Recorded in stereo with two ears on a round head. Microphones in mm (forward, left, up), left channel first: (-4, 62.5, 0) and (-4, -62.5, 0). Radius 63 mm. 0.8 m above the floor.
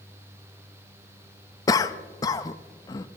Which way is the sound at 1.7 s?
25° left (ahead or behind).